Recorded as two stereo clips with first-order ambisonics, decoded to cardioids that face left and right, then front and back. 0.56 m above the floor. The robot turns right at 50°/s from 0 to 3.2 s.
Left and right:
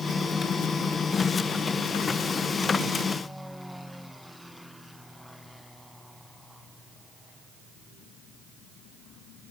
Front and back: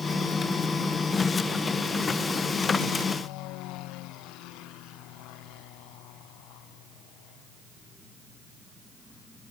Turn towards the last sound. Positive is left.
No sound to turn to.